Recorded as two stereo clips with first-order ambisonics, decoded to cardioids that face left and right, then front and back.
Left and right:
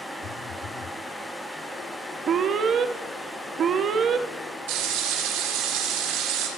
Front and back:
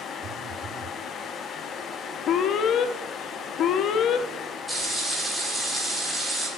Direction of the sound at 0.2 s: 135° left.